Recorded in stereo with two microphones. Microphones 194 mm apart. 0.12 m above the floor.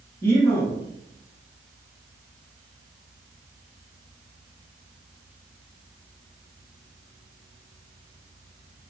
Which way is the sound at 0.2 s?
10° left (ahead or behind).